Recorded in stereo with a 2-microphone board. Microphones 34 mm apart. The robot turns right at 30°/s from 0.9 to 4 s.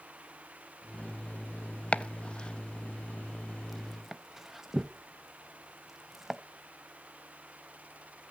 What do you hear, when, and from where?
1.9 s chopping: 40° left (ahead or behind), 0.6 m; by 6.4 s 10° right (ahead or behind), 0.6 m